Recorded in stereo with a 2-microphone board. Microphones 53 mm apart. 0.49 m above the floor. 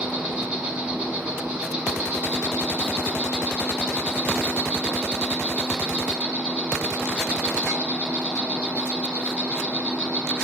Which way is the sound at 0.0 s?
20° right (ahead or behind).